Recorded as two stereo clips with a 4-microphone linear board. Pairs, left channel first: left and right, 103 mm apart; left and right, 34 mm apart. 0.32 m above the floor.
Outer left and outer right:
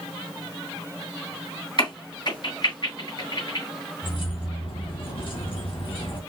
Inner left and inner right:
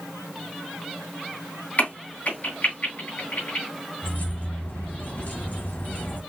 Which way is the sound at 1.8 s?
50° left (ahead or behind).